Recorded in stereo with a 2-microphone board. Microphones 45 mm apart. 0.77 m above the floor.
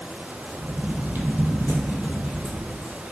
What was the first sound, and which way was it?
Footsteps, 40° right (ahead or behind).